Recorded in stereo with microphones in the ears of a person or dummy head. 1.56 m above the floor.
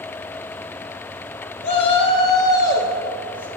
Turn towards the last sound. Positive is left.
turn(degrees=10)  # may be behind; listen again after turning